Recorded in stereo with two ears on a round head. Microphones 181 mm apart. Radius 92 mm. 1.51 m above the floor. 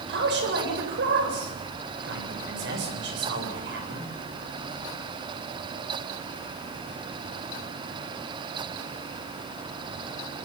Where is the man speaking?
65° right (ahead or behind), 8 m.